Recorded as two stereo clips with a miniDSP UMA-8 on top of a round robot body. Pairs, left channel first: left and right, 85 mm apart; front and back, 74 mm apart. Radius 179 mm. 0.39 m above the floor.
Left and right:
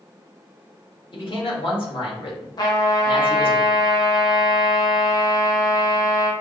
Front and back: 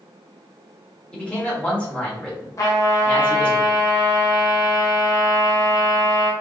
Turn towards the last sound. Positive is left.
turn(degrees=45)